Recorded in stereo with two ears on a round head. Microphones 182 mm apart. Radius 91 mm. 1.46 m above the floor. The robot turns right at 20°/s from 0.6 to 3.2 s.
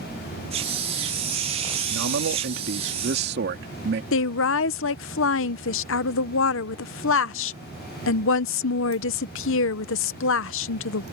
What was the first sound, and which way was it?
A man speaking, 80° right.